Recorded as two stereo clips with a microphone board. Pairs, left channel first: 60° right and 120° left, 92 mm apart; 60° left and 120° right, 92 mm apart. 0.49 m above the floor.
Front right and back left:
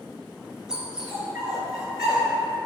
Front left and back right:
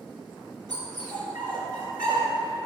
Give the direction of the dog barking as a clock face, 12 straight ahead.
5 o'clock.